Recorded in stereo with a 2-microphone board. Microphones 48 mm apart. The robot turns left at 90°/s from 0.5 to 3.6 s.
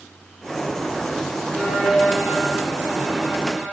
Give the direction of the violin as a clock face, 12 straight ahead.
12 o'clock.